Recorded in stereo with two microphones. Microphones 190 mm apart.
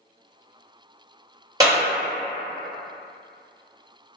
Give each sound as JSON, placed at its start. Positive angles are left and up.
{"t": 1.6, "sound": "a clap", "side_deg": -20, "distance_m": 1.8}